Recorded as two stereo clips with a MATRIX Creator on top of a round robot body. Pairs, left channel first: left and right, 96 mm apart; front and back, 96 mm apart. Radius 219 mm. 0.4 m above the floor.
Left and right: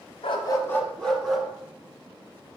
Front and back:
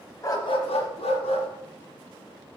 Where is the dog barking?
60° left, 0.8 m; by 1.5 s 5° right, 1.8 m.